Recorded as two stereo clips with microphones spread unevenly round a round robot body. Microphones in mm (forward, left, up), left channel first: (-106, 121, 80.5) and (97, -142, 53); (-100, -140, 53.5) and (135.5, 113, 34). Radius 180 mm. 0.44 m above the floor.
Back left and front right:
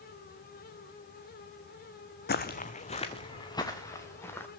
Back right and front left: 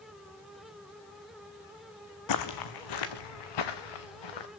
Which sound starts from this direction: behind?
Footsteps, at 2.3 s.